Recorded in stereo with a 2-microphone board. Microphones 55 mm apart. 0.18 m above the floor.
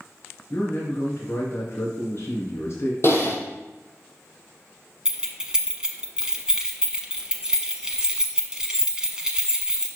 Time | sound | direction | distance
0.5 | a man speaking | 60° left (ahead or behind) | 2.5 m
3.0 | typing on a keyboard | 45° left (ahead or behind) | 1.3 m
5.0 | keys jangling | 15° right (ahead or behind) | 1.0 m